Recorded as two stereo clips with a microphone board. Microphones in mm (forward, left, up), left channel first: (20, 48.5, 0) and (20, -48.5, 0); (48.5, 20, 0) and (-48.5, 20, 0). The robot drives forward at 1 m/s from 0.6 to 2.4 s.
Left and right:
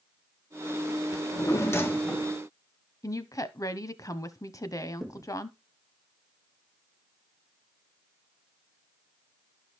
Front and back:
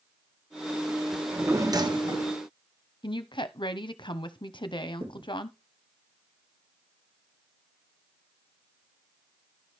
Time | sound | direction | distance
1.1 | a drawer | 90° left | 0.8 m
3.0 | a woman speaking | 35° left | 0.9 m
5.0 | a thud | 175° left | 2 m